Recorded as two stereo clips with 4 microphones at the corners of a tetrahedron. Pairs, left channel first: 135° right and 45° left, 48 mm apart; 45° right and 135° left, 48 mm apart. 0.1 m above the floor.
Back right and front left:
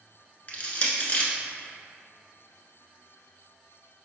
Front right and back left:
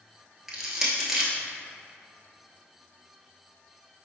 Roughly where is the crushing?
Behind right.